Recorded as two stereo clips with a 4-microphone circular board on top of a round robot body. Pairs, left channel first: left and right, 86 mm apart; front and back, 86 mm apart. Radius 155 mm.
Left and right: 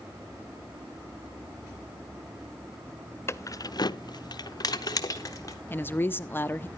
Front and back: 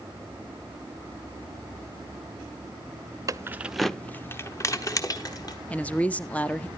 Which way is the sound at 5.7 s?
55° left.